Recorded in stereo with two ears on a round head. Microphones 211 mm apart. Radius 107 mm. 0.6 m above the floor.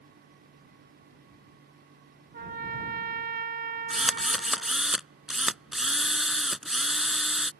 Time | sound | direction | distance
2.3 | a trumpet | 40° right (ahead or behind) | ?
3.9 | a drill | centre (ahead or behind) | ?